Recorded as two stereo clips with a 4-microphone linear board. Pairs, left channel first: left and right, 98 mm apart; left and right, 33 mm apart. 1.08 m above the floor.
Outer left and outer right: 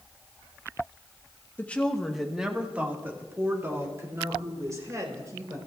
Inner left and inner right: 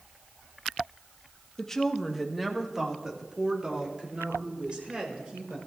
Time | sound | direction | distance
1.6 | a woman speaking | 20° left (ahead or behind) | 1.3 m